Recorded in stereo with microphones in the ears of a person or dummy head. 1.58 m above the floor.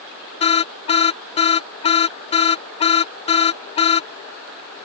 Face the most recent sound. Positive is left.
turn(degrees=35)  # may be behind; listen again after turning